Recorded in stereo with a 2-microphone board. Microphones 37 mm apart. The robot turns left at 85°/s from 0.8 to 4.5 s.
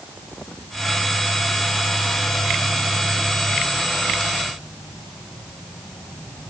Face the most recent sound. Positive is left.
No sound to turn to.